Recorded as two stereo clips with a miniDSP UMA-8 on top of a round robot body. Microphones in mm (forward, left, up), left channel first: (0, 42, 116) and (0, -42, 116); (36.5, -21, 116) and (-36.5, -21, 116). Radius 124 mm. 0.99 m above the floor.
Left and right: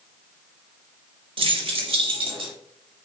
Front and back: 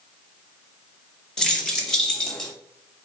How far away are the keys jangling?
About 1.4 m.